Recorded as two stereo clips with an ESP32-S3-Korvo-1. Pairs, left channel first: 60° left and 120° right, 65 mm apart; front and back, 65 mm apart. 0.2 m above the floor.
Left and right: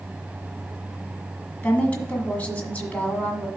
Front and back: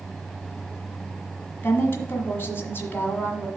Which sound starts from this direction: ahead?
A woman speaking, at 1.6 s.